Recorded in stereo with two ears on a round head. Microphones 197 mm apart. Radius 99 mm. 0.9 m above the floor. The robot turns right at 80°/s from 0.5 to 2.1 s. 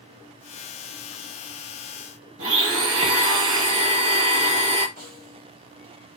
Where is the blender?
65° right (ahead or behind), 1.2 m.